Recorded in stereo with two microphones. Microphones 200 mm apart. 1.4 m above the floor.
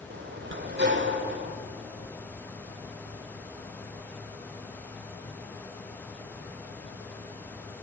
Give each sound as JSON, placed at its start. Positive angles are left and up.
{"t": 0.1, "sound": "a sliding door", "side_deg": -65, "distance_m": 1.9}